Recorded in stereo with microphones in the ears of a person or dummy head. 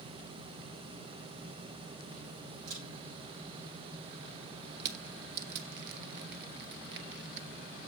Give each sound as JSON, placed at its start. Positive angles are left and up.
{"t": 2.7, "sound": "a camera shutter", "side_deg": -80, "distance_m": 6.5}
{"t": 4.8, "sound": "crushing", "side_deg": -55, "distance_m": 1.0}